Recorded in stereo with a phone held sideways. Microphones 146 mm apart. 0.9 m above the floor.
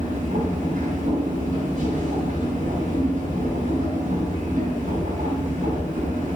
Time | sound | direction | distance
0.0 | a machine running | 60° right (ahead or behind) | 3 m